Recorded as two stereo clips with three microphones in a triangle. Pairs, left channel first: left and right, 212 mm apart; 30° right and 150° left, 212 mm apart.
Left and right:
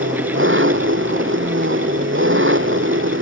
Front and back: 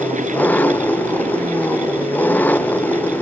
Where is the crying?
I don't hear crying.